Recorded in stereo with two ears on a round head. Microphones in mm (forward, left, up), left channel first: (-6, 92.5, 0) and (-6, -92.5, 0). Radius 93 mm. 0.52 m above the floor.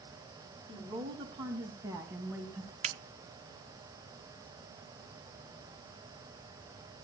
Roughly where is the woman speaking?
Right.